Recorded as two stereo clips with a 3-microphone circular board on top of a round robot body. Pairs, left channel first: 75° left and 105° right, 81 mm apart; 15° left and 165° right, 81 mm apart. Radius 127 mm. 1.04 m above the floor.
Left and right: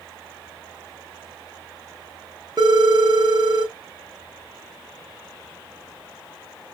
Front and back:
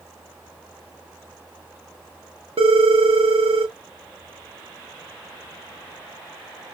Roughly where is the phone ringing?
Behind right.